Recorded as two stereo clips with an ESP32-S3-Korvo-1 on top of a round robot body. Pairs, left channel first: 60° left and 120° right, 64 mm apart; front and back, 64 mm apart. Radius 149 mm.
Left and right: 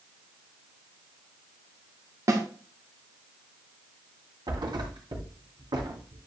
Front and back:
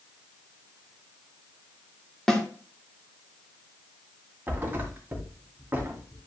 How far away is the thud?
About 2.5 m.